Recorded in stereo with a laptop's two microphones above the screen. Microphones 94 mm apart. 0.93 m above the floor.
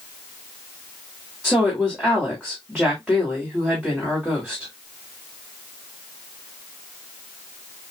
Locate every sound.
1.4 s a woman speaking: 5° right (ahead or behind), 1.9 m